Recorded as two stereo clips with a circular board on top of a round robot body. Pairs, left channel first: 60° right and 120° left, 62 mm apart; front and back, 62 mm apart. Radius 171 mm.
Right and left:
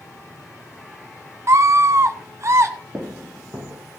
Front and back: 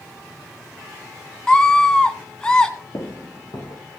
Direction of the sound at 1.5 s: 75° left.